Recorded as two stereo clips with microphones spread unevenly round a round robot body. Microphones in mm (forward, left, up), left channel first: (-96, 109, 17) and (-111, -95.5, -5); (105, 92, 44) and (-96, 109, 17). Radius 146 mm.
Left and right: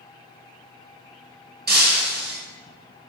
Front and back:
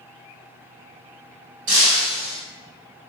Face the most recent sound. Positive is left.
turn(degrees=-135)